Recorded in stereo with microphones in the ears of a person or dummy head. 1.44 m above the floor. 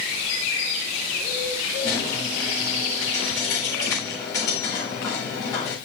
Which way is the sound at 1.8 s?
25° left (ahead or behind).